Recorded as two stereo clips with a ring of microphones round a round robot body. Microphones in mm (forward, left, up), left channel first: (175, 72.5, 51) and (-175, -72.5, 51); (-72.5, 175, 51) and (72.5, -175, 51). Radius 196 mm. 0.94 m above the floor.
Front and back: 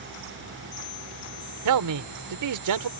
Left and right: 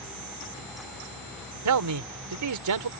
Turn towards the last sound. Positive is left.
turn(degrees=-115)